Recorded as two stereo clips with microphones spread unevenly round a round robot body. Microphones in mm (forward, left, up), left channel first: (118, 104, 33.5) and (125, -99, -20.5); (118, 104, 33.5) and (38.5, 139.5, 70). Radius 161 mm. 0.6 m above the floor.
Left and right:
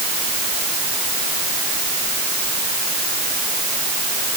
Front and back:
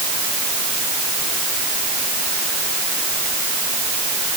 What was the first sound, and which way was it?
Only background noise.